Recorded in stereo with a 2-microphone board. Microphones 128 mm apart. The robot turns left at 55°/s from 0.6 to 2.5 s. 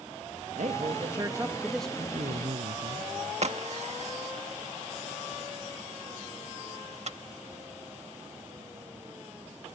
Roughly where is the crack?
Right.